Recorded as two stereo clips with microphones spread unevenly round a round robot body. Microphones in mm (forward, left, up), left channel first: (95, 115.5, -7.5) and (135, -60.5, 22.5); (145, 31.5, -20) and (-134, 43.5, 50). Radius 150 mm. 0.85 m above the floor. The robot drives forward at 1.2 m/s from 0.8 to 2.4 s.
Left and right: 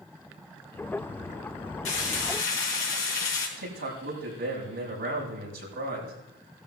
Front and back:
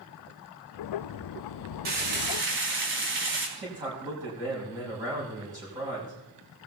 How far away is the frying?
About 3.5 m.